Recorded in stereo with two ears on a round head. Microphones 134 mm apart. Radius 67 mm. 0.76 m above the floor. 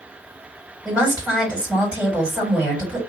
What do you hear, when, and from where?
0.8 s a woman speaking: 10° right (ahead or behind), 2.5 m